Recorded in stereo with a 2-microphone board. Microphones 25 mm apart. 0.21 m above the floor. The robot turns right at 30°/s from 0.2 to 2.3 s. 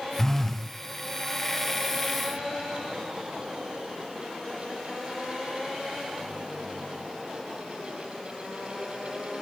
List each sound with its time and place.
0.2 s a phone buzzing: 20° left (ahead or behind), 0.7 m; by 0.7 s 5° left (ahead or behind), 0.7 m